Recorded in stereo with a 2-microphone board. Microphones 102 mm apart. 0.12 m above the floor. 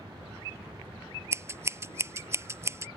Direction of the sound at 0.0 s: 30° right (ahead or behind).